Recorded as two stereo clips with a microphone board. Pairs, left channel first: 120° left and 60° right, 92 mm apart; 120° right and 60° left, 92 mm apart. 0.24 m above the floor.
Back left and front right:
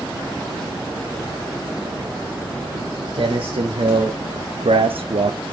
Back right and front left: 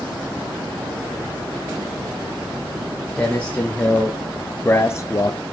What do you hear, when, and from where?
2.7 s footsteps: 45° right, 3 m; by 5.4 s 75° right, 0.6 m